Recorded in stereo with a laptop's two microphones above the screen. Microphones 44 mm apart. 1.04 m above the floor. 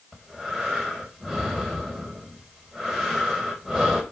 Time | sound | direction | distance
0.1 | breathing | centre (ahead or behind) | 4.5 m